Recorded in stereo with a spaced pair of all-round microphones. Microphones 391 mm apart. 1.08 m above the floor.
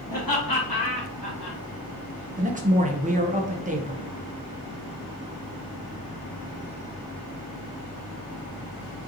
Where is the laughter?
55° left (ahead or behind), 1.5 m; by 1.6 s 75° left (ahead or behind), 1.4 m.